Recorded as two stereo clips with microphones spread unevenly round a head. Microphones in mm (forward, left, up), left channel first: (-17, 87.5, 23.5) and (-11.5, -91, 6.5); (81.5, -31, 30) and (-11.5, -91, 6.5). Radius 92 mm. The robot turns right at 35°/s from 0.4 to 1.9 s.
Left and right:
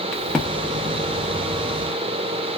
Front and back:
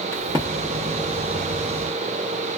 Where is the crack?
150° left, 0.8 m; by 0.5 s 155° left, 0.8 m.